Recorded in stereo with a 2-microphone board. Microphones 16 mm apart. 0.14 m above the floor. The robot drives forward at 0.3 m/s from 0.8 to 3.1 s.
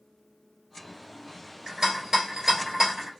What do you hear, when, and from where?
1.7 s a rattle: 35° right (ahead or behind), 1.7 m; by 3.1 s 30° right (ahead or behind), 2.0 m